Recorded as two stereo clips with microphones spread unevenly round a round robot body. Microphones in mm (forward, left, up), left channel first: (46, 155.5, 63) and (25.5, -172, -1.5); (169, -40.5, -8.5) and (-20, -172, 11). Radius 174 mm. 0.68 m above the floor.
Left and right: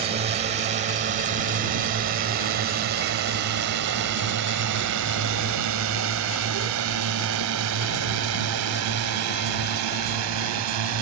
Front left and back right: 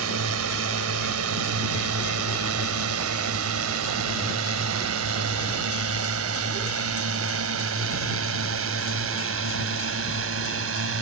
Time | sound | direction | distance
0.0 | a drone | 160° right | ?